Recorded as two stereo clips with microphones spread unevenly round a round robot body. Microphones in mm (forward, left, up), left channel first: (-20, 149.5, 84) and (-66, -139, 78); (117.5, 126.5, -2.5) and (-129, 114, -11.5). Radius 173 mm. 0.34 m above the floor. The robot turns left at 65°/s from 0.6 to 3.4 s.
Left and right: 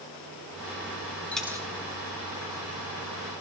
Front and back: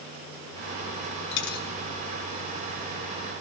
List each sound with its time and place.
1.3 s a dropped coin: 5° right, 0.9 m; by 1.7 s 25° right, 0.9 m